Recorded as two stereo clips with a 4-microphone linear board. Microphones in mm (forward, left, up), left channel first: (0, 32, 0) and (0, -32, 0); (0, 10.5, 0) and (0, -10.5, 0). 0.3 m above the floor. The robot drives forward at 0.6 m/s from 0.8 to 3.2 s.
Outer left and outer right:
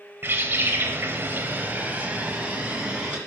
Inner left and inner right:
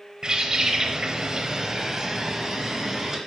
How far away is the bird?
About 0.8 m.